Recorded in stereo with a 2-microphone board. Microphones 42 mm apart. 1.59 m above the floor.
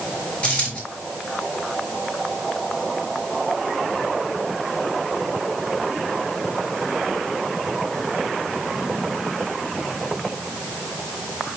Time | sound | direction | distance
0.4 | a dropped coin | 25° left (ahead or behind) | 5 m